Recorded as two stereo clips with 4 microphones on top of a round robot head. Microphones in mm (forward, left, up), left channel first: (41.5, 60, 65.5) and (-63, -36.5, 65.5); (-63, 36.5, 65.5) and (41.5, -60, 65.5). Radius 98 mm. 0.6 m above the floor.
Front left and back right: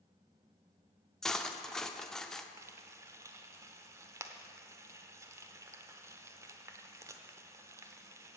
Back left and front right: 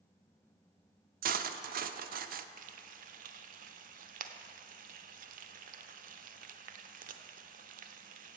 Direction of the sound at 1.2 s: 45° right.